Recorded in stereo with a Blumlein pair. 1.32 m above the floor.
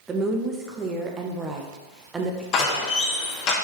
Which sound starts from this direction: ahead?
A woman speaking, at 0.1 s.